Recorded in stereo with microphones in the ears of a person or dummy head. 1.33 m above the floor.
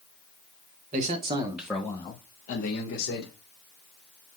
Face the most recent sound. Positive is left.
turn(degrees=65)  # may be behind; listen again after turning